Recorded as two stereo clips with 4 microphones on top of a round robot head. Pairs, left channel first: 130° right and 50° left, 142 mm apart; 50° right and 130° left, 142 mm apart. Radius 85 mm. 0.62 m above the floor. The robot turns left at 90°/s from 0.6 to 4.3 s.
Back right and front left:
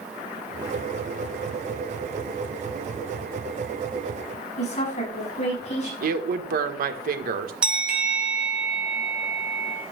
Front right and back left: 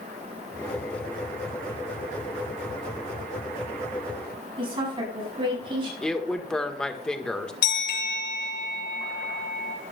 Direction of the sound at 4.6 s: 175° right.